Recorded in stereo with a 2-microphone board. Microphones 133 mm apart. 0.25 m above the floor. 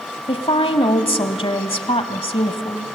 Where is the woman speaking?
45° left (ahead or behind), 1.2 m.